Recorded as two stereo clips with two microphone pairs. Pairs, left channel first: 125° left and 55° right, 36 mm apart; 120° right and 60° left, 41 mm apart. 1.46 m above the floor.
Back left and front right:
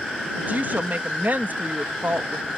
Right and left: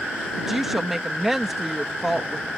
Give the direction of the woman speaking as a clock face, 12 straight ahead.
1 o'clock.